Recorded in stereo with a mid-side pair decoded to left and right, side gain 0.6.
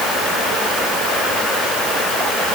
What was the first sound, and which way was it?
Only background noise.